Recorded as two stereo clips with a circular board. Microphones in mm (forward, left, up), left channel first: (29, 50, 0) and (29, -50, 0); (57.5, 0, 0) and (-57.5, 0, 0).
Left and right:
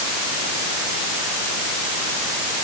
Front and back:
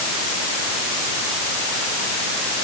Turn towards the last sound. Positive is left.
No sound to turn to.